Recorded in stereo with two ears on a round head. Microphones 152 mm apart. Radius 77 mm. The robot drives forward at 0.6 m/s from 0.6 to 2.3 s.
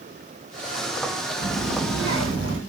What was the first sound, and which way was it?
A child speaking, 65° right (ahead or behind).